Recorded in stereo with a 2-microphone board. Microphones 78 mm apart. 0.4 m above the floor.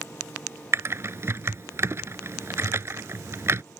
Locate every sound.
0.7 s typing on a keyboard: 40° right (ahead or behind)